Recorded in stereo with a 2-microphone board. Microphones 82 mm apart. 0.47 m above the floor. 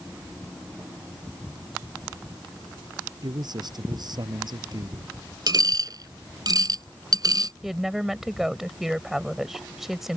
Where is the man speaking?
55° right (ahead or behind).